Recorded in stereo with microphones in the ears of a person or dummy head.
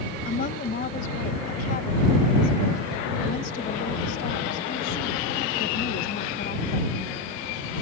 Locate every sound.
0.2 s a woman speaking: 50° left (ahead or behind)